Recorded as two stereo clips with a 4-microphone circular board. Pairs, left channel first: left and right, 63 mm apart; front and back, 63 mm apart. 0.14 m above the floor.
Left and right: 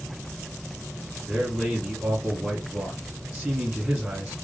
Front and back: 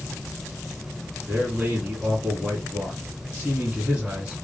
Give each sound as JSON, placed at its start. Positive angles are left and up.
{"t": 1.3, "sound": "a man speaking", "azimuth_deg": -150, "distance_m": 1.3}